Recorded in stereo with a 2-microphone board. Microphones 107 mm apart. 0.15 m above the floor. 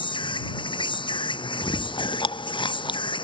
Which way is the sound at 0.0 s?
50° left (ahead or behind).